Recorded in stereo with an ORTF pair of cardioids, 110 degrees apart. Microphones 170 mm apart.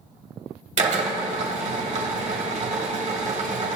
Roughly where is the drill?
Ahead right.